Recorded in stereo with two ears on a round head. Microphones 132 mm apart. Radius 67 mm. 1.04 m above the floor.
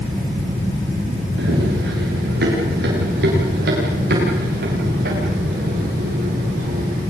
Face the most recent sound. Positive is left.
turn(degrees=-65)  # may be behind; listen again after turning